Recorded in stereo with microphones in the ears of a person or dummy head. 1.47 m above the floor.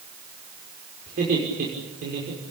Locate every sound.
1.1 s laughter: 50° right (ahead or behind), 6 m